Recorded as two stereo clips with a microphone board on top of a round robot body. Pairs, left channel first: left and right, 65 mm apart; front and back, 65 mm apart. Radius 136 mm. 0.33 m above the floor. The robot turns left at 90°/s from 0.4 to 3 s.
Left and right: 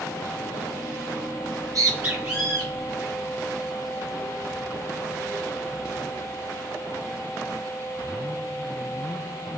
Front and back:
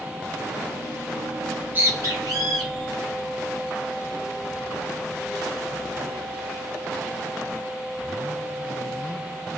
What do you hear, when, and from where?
1.4 s a bird: 90° right, 1.2 m; by 6.4 s 125° left, 1.2 m